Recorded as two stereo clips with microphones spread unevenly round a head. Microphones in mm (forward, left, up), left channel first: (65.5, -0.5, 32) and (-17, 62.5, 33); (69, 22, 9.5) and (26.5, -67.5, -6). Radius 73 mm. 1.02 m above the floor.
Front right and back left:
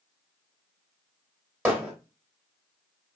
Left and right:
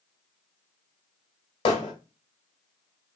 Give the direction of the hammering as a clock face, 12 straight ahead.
10 o'clock.